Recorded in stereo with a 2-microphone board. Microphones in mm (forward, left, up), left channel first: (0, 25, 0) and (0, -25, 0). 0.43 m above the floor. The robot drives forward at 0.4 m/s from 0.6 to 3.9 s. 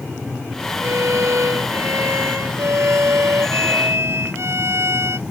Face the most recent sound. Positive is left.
turn(degrees=-60)  # may be behind; listen again after turning